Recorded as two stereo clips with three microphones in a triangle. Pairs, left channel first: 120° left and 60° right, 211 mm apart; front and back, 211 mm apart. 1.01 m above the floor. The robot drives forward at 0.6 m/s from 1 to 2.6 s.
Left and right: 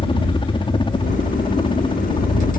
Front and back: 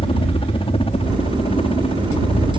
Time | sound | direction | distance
0.0 | a helicopter | 60° left | ?